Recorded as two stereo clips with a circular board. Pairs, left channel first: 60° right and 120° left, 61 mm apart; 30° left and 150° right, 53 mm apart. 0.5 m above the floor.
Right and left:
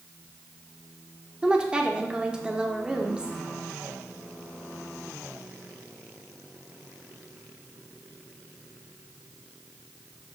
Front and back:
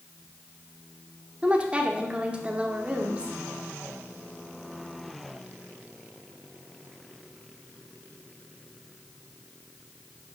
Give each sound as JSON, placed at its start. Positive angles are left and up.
{"t": 1.4, "sound": "a woman speaking", "azimuth_deg": 175, "distance_m": 0.9}